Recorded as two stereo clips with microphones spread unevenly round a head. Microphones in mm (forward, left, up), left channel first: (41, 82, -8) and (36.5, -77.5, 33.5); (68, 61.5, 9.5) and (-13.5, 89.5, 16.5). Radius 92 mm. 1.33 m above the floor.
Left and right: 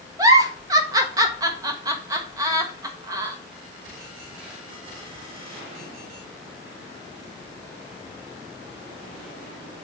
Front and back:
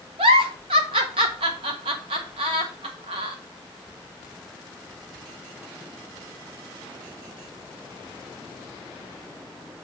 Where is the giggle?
160° right, 0.7 m.